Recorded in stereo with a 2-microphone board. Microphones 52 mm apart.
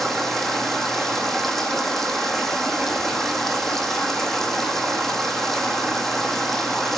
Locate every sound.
0.0 s running water: 5° left (ahead or behind), 1.0 m